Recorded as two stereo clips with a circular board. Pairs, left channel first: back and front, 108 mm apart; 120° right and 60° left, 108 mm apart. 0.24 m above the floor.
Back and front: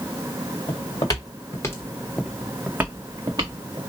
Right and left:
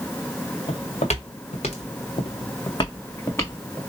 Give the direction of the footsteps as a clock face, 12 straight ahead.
5 o'clock.